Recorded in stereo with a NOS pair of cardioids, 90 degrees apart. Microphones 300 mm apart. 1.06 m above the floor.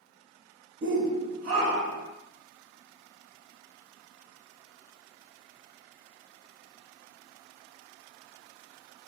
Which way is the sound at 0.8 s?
40° right.